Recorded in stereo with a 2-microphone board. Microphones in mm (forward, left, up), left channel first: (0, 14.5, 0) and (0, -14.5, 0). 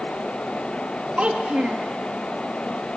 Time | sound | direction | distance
1.2 | a child speaking | 45° right (ahead or behind) | 1.2 m